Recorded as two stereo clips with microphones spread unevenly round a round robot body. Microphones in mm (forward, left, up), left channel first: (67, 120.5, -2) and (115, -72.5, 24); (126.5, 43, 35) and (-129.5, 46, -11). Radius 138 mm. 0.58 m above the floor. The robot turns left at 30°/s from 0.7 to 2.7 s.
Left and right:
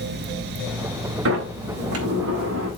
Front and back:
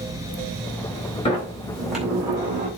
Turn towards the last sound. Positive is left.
turn(degrees=-120)